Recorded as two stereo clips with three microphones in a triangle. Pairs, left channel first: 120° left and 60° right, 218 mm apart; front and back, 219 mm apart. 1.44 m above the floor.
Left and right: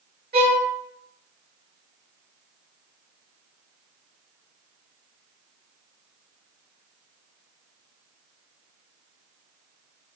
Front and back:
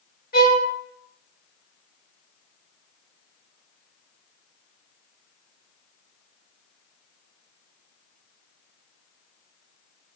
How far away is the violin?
About 1.5 m.